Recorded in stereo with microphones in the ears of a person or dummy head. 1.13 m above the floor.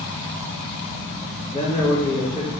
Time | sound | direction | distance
1.5 | a man speaking | 20° left (ahead or behind) | 1.1 m